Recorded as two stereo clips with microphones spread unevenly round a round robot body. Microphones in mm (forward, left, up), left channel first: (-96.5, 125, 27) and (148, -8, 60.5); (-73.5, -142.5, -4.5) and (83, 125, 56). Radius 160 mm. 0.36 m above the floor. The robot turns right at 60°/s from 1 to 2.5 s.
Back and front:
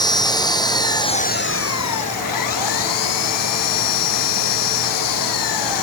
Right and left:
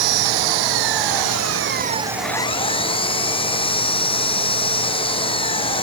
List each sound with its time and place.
0.0 s an engine running: 75° left; by 5.8 s 165° left